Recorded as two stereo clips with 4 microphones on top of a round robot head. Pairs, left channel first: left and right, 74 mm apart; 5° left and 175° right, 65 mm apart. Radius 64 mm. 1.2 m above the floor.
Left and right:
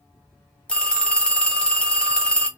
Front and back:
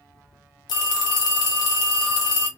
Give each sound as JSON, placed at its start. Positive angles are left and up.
{"t": 0.7, "sound": "a phone ringing", "azimuth_deg": 15, "distance_m": 1.0}